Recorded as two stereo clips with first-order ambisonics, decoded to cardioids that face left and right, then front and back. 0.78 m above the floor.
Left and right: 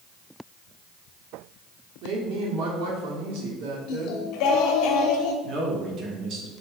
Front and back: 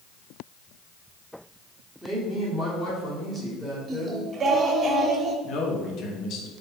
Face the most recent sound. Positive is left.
turn(degrees=-40)